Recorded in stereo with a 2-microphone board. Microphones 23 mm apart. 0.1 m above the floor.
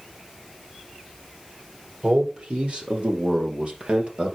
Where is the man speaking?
50° right (ahead or behind), 2.5 m.